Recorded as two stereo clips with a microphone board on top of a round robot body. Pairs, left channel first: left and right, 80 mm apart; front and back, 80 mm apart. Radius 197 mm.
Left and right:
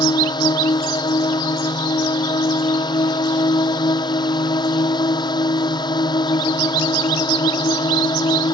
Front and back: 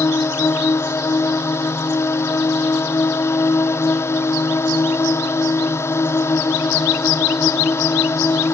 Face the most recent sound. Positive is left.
turn(degrees=60)